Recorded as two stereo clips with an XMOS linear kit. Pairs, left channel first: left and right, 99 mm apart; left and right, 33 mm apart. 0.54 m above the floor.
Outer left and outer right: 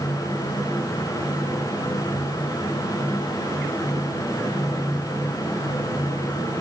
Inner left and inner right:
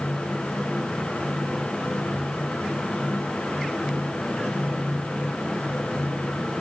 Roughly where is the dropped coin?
I don't hear a dropped coin.